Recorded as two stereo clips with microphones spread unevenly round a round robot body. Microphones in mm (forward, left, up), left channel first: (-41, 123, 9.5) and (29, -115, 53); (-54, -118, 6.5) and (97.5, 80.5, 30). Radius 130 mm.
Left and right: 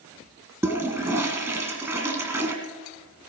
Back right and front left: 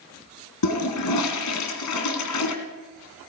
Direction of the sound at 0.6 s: 150° right.